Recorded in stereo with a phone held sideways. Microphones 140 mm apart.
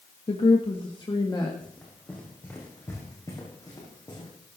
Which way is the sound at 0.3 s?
45° left (ahead or behind).